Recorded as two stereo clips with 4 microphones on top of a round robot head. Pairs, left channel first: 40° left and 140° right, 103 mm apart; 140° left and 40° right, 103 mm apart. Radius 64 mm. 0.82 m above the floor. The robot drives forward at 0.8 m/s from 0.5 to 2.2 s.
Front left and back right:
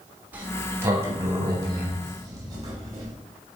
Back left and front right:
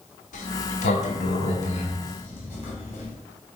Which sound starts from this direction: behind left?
A sliding door, at 0.3 s.